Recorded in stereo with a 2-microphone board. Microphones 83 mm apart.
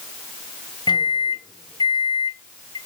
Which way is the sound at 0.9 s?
55° left (ahead or behind).